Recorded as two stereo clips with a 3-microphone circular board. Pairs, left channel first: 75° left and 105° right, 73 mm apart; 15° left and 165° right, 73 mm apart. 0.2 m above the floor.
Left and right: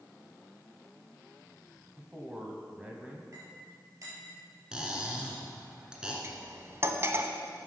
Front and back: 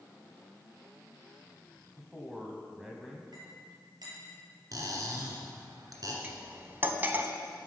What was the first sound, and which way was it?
A man speaking, 100° right.